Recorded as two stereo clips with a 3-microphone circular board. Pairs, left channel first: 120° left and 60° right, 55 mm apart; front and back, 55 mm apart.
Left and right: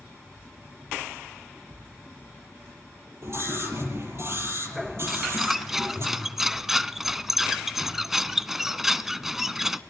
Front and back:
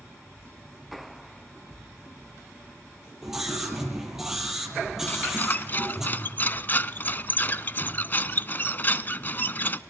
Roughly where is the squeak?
Ahead.